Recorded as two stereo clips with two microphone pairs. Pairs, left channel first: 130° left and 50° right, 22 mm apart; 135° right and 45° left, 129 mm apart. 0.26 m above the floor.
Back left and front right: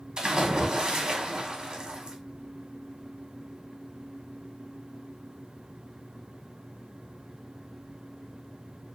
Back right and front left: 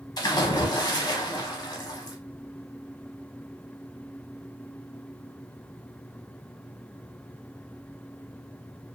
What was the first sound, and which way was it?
A splash, 90° right.